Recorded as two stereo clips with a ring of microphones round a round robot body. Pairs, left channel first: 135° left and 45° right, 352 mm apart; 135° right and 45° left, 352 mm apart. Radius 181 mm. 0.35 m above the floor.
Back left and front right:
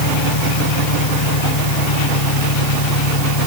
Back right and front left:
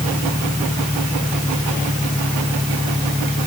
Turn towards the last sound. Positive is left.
turn(degrees=135)